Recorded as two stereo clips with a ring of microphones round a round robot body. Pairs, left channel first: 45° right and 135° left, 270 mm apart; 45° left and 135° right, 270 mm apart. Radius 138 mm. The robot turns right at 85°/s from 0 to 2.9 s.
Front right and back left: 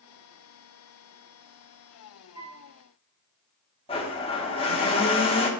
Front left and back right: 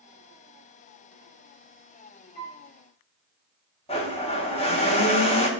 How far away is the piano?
About 3 m.